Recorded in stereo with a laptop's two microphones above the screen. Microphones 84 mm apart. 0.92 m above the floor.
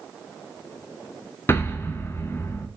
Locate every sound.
1.5 s an explosion: 30° left (ahead or behind), 0.8 m